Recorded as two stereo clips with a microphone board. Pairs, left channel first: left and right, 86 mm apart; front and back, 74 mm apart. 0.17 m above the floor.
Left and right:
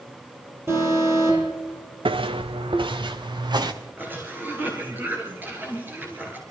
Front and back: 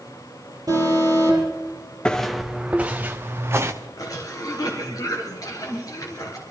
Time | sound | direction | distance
0.7 | an alarm | 145° right | 7.5 m
2.0 | footsteps | 80° right | 0.7 m
4.0 | a cough | 25° right | 2.5 m